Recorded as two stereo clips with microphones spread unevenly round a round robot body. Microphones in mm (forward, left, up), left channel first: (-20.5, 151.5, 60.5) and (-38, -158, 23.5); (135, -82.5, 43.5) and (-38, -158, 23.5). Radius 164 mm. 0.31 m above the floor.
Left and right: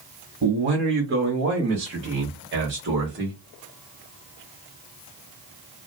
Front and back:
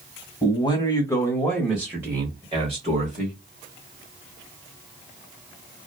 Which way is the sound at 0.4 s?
40° right.